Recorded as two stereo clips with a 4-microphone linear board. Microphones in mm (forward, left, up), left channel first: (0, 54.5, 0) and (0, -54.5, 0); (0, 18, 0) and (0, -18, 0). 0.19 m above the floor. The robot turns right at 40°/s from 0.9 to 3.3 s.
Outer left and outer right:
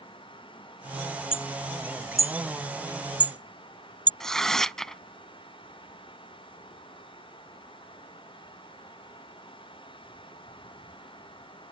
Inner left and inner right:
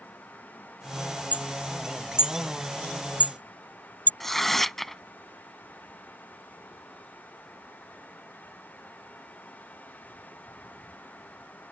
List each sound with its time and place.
1.3 s hammering: 55° left (ahead or behind); by 4.1 s 40° left (ahead or behind)
4.2 s tearing paper: 5° left (ahead or behind)